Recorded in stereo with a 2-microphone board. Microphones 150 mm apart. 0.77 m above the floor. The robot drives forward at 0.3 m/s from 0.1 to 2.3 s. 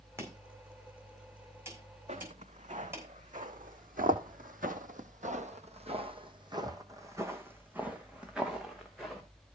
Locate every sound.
0.2 s chopping: 20° right (ahead or behind), 4.5 m; by 3.1 s 15° right (ahead or behind), 5.5 m
2.1 s footsteps: 50° right (ahead or behind), 3 m; by 9.2 s centre (ahead or behind), 3.5 m